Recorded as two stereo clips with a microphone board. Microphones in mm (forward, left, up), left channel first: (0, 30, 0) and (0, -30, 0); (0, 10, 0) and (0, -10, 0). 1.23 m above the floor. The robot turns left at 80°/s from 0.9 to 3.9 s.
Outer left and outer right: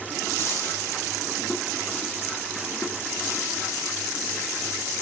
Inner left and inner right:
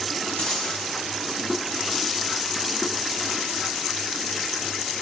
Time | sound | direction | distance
0.4 | a dropped coin | 45° left (ahead or behind) | 3.5 m